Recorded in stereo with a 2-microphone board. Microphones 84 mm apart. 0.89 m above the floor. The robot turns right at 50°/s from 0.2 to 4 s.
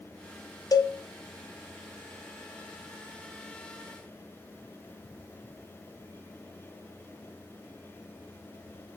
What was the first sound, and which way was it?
A cowbell, 45° left (ahead or behind).